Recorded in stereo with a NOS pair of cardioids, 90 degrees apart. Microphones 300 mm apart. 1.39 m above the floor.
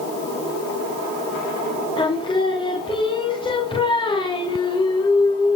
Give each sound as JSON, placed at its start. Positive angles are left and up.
{"t": 2.0, "sound": "singing", "azimuth_deg": 15, "distance_m": 3.5}